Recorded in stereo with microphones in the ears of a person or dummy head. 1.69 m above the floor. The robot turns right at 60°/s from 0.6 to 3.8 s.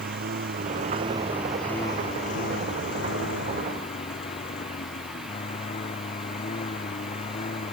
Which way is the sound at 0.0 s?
55° right.